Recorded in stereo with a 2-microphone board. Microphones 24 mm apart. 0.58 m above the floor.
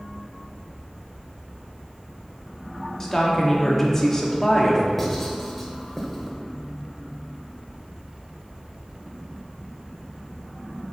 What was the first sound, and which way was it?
A woman speaking, 15° left (ahead or behind).